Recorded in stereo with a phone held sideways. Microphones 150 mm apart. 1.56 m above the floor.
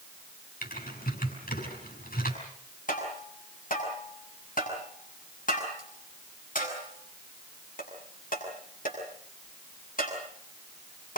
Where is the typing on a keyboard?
80° left, 6.5 m.